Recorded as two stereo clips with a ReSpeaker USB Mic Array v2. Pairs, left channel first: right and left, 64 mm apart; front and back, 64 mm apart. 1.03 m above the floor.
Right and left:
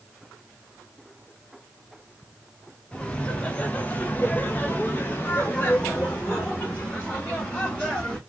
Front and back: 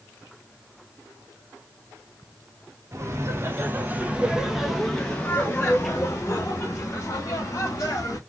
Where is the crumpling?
I don't hear crumpling.